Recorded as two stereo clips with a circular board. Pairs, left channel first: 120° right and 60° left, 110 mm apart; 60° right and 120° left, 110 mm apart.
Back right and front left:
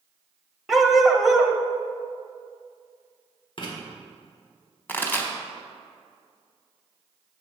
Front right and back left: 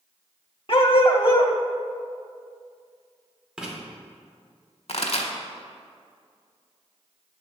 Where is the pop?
45° right, 1.2 m.